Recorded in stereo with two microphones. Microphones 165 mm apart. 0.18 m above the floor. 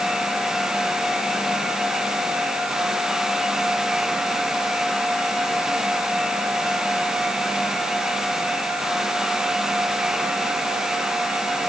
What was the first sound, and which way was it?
Only background noise.